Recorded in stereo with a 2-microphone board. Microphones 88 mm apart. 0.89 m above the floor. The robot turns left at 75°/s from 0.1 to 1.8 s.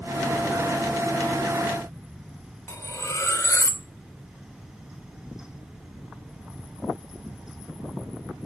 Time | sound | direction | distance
2.7 | cutlery clinking | 35° left (ahead or behind) | 1.8 m